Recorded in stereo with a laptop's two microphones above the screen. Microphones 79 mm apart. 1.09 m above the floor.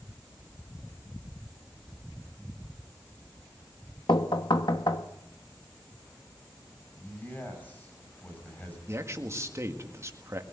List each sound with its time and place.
4.1 s knocking: 70° left (ahead or behind), 1.2 m
7.0 s a man speaking: 20° left (ahead or behind), 6 m
8.9 s a man speaking: 35° right (ahead or behind), 1.7 m